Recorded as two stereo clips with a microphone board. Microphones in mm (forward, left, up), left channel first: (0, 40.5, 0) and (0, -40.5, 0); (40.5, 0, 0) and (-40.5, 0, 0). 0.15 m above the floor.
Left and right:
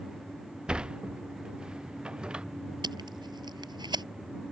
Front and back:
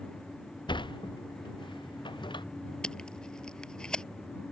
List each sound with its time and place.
0.7 s a sliding door: 10° right
2.8 s tape being pulled: 80° right